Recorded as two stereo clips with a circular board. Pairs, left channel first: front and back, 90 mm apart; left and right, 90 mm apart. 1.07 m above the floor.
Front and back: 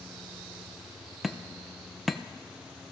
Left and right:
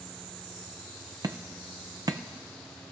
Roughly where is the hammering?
Right.